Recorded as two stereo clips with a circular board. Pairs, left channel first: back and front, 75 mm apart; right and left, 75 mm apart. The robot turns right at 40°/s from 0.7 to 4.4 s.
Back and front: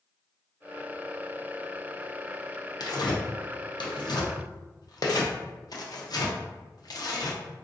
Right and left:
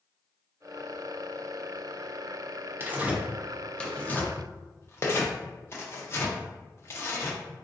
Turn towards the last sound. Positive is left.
turn(degrees=-145)